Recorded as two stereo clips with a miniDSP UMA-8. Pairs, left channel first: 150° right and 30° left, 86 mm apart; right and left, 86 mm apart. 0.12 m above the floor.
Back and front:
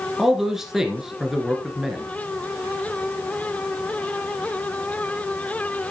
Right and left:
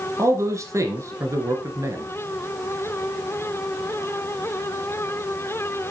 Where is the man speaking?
115° left, 1.4 m.